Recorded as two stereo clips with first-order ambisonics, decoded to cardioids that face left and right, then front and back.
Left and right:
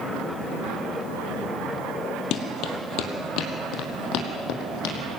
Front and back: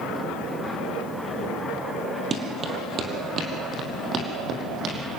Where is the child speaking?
I don't hear a child speaking.